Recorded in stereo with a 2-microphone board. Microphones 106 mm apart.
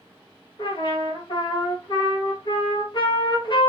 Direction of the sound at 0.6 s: 45° left (ahead or behind).